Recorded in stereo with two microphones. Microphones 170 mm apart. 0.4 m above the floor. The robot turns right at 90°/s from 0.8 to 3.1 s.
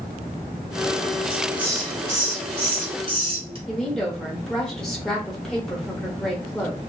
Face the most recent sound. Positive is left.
turn(degrees=5)  # may be behind; listen again after turning